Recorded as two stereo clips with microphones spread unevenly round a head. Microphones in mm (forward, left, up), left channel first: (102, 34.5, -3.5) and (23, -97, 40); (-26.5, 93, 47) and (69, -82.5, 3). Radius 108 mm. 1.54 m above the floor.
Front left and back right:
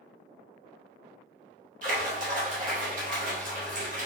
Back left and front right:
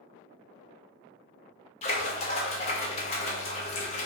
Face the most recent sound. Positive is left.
turn(degrees=180)